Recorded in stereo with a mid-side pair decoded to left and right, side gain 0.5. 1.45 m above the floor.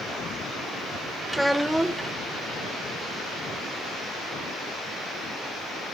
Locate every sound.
1.3 s a child speaking: 5° right, 1.0 m